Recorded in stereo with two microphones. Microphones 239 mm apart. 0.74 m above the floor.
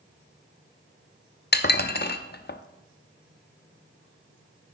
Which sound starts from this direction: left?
Dishes clattering, at 1.5 s.